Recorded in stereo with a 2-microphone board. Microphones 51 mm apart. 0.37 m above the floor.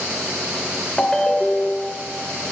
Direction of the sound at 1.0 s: 10° left (ahead or behind).